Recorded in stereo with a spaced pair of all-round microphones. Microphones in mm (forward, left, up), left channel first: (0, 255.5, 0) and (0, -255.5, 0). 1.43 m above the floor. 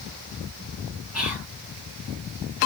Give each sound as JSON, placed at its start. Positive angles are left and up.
{"t": 1.1, "sound": "whispering", "side_deg": 30, "distance_m": 1.8}